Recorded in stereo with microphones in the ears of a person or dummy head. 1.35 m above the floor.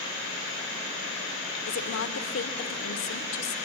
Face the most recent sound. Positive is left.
turn(degrees=75)  # may be behind; listen again after turning